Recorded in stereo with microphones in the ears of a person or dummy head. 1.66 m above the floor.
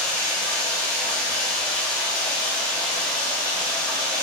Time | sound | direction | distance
0.0 | running water | 30° left (ahead or behind) | 1.7 m